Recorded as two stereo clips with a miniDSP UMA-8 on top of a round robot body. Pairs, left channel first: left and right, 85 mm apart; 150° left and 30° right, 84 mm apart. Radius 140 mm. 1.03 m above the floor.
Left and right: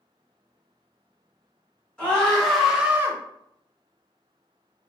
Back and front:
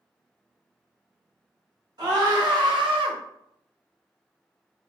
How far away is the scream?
About 1.5 m.